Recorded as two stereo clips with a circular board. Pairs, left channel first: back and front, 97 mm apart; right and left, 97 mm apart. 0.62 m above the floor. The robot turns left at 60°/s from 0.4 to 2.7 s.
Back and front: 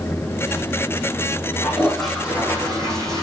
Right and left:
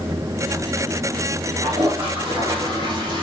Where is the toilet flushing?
115° left, 4.5 m; by 3.2 s 50° left, 4.5 m.